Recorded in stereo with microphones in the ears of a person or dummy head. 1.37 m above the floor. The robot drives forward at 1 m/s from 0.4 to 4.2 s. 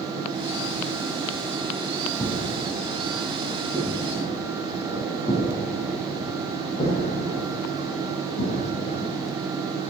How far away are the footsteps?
About 4.5 m.